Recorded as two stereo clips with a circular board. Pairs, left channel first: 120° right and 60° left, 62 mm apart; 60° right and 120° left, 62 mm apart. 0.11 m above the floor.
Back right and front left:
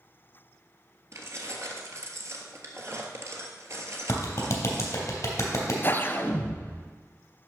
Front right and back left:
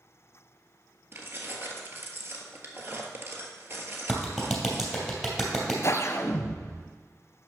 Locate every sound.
1.1 s keys jangling: 85° left, 1.4 m
4.1 s a clap: 155° right, 2.5 m
5.8 s a whoosh: 75° right, 0.7 m